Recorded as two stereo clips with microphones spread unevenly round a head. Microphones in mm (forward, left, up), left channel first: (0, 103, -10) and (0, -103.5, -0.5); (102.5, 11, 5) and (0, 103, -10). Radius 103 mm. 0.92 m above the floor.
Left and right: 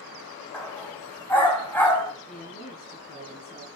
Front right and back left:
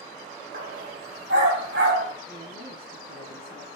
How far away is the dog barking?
About 2.5 m.